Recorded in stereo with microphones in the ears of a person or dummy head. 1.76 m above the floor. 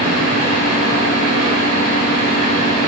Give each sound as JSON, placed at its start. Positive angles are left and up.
{"t": 0.0, "sound": "a fan", "side_deg": -35, "distance_m": 3.5}